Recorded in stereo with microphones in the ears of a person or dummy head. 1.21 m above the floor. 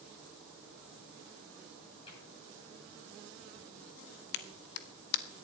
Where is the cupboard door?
30° left (ahead or behind), 10 m.